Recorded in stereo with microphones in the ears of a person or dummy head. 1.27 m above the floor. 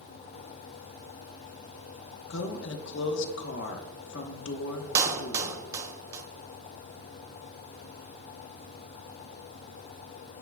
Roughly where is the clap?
Centre.